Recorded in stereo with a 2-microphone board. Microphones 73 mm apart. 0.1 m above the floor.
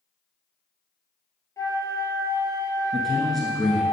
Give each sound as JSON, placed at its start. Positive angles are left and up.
{"t": 1.6, "sound": "a flute", "side_deg": 50, "distance_m": 1.8}
{"t": 2.9, "sound": "a man speaking", "side_deg": 5, "distance_m": 1.1}